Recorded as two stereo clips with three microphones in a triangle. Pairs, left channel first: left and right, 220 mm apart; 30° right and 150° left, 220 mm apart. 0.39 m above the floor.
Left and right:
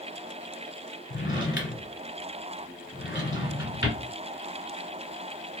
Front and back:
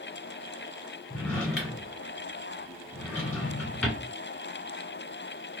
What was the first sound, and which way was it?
A drawer, 55° left.